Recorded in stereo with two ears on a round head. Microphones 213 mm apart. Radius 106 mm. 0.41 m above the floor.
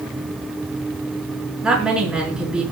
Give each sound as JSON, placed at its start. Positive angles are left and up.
{"t": 1.6, "sound": "a woman speaking", "side_deg": -5, "distance_m": 5.0}